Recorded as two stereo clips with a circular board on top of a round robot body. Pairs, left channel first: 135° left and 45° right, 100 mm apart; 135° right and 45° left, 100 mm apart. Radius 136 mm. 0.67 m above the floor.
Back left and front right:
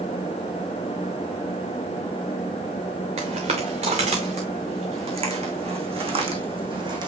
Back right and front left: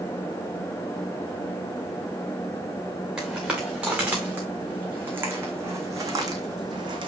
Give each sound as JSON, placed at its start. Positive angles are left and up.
{"t": 3.2, "sound": "footsteps", "azimuth_deg": -40, "distance_m": 5.5}